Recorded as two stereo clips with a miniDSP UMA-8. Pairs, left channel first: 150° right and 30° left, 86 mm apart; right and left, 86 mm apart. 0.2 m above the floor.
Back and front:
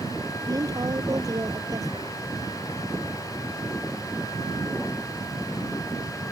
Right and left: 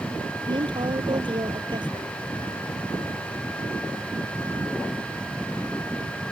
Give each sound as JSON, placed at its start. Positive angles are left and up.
{"t": 0.5, "sound": "a woman speaking", "azimuth_deg": 75}